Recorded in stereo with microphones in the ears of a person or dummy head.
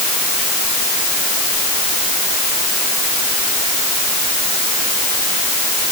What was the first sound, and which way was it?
Only background noise.